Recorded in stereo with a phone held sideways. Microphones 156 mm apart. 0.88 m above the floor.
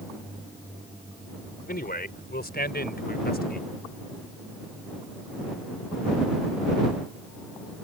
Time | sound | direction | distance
1.7 | a man speaking | 75° left (ahead or behind) | ?